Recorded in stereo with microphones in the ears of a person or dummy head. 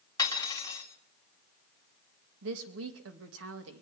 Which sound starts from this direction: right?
A woman speaking, at 2.4 s.